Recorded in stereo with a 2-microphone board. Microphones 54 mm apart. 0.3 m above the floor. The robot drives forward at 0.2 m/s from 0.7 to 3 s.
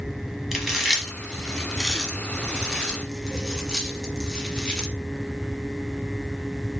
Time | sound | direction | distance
0.5 | chewing | 5° right (ahead or behind) | 1.1 m